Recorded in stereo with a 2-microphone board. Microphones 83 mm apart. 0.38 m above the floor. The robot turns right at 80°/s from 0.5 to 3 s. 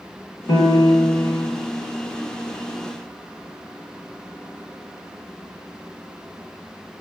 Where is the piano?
80° left, 0.8 m; by 1.5 s 160° left, 0.8 m.